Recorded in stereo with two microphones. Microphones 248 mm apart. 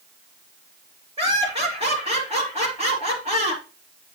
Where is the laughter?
25° right (ahead or behind), 4 m.